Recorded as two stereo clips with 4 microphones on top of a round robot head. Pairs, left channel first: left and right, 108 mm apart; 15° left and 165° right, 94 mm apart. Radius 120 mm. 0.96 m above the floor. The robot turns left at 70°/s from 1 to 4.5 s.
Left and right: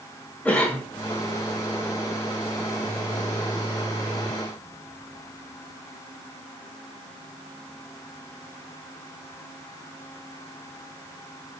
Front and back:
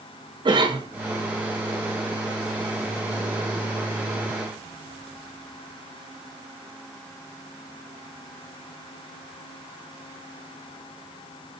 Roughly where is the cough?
Behind.